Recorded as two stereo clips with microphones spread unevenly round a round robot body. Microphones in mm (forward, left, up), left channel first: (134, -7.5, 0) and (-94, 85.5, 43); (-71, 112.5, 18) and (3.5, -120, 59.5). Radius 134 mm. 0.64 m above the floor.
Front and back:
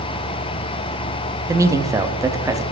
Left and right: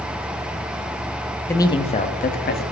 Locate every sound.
1.5 s a man speaking: 70° left, 0.6 m; by 2.6 s 75° left, 1.0 m